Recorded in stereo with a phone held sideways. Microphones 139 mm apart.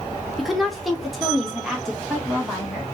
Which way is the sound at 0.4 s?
Centre (ahead or behind).